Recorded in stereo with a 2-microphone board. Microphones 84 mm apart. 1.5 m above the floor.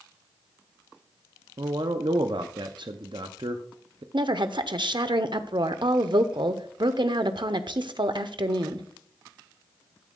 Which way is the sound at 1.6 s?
70° right (ahead or behind).